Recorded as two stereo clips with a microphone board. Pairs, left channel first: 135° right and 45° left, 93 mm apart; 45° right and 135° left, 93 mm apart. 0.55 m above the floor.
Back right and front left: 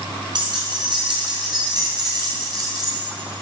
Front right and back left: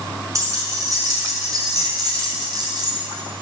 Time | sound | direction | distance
0.3 | keys jangling | 80° left | 5 m